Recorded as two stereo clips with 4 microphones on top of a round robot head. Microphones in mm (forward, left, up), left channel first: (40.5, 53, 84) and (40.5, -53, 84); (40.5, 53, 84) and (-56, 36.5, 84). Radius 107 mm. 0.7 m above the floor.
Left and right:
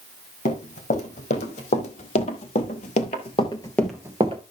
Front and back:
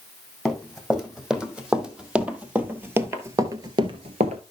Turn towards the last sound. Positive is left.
turn(degrees=-140)